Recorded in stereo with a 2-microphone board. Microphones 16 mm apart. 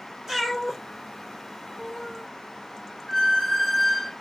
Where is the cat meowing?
20° right (ahead or behind), 1.1 m; by 2.3 s 30° left (ahead or behind), 1.2 m.